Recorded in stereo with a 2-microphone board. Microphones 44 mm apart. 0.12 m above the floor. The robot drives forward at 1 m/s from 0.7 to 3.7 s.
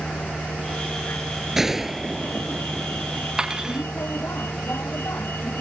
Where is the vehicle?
65° left (ahead or behind); by 5.6 s 70° left (ahead or behind).